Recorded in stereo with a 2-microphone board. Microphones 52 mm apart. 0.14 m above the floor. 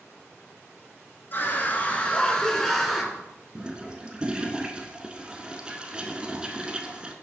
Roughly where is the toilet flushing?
Right.